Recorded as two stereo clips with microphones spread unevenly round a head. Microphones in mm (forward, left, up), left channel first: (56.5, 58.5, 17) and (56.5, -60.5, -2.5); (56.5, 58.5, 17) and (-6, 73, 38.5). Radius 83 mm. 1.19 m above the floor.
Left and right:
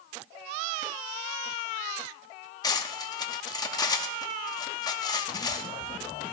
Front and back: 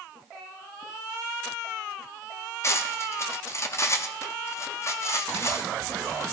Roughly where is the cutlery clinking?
Ahead left.